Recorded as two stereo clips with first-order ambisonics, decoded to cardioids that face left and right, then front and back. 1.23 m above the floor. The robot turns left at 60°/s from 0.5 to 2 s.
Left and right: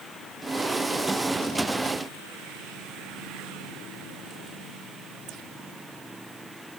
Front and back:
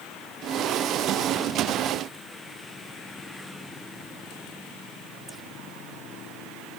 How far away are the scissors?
I don't hear scissors.